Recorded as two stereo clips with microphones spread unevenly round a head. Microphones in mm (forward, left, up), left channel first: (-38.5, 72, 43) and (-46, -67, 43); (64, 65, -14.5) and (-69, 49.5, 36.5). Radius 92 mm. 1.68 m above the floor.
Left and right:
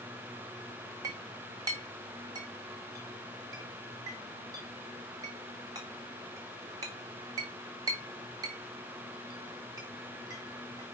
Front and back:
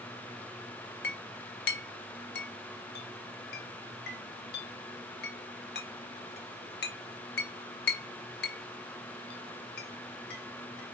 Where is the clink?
25° right, 1.4 m.